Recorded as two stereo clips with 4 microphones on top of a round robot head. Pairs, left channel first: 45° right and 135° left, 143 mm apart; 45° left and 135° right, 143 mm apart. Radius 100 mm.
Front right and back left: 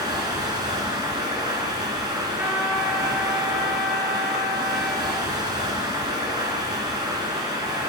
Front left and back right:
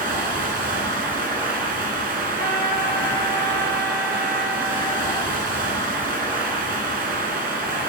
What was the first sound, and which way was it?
Running water, 160° right.